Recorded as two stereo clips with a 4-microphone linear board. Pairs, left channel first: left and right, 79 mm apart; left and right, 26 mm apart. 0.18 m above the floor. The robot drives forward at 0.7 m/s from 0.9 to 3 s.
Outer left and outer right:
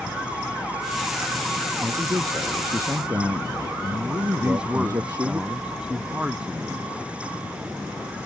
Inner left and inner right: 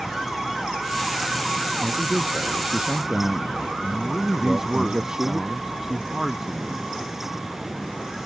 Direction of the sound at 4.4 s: 15° right (ahead or behind).